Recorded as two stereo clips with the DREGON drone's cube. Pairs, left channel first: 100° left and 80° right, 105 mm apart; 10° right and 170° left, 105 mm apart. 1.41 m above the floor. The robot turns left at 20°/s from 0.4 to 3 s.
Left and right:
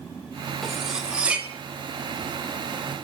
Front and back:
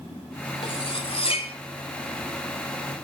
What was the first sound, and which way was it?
Cutlery clinking, 15° left.